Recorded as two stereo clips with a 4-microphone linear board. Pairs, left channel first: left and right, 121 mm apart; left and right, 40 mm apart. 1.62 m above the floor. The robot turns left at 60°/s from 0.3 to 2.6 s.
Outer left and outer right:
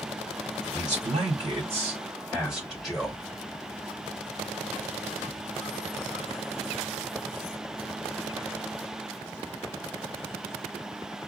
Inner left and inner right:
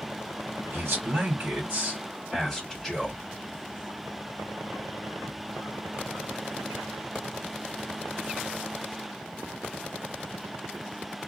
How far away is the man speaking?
About 2.5 m.